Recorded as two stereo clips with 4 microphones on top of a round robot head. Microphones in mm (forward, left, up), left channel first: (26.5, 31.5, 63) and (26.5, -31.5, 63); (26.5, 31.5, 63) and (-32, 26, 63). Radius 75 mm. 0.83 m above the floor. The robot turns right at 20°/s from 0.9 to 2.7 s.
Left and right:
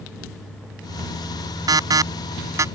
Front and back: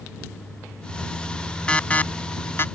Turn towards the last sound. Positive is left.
turn(degrees=-50)